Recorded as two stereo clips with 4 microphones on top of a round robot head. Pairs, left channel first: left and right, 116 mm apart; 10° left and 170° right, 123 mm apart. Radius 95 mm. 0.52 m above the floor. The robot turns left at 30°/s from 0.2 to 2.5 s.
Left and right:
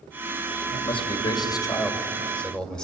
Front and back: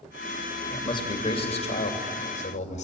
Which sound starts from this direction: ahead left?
A man speaking, at 0.7 s.